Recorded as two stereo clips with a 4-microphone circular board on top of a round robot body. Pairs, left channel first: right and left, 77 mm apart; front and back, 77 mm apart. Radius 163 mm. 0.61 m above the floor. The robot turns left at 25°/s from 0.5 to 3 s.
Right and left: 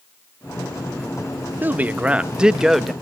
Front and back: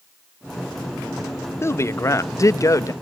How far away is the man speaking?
About 0.8 m.